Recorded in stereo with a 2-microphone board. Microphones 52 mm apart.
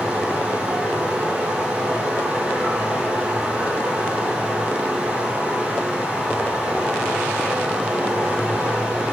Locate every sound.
0.0 s running water: 15° right (ahead or behind), 1.3 m